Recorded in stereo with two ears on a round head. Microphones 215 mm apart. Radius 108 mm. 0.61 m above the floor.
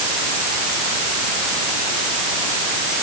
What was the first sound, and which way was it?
Only background noise.